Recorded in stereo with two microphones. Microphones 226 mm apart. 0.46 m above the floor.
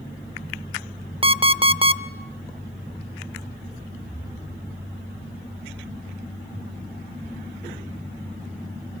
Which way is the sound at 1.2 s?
25° right (ahead or behind).